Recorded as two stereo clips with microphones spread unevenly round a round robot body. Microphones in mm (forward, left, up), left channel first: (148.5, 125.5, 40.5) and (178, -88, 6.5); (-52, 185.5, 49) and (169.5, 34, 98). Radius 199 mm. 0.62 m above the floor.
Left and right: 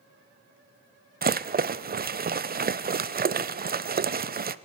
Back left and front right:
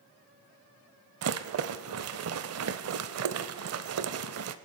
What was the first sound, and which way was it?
A rattle, 30° right.